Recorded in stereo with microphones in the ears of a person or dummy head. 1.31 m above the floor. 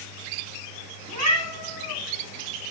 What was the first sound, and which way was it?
A cat meowing, 80° right.